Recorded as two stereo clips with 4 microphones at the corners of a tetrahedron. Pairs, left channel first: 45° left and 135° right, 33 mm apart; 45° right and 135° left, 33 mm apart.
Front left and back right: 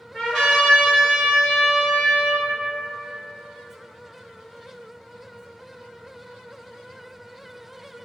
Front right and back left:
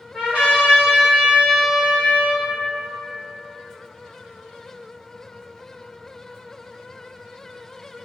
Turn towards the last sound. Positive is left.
turn(degrees=120)